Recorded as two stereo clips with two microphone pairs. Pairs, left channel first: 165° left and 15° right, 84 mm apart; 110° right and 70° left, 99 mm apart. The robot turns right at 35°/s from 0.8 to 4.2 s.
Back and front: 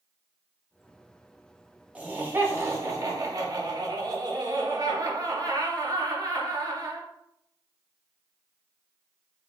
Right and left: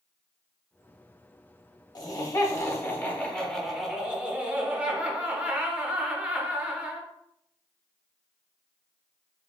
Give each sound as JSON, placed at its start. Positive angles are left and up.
{"t": 1.9, "sound": "laughter", "azimuth_deg": -85, "distance_m": 0.8}